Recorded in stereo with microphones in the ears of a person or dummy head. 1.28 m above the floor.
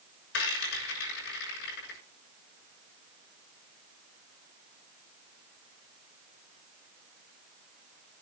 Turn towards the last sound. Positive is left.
turn(degrees=65)  # may be behind; listen again after turning